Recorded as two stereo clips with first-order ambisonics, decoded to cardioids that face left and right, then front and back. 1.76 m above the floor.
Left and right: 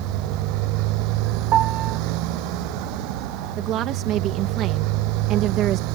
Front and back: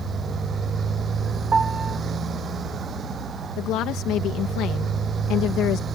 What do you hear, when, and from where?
0.0 s a motorcycle: 115° right
1.5 s a piano: 115° right
3.6 s a woman speaking: 45° right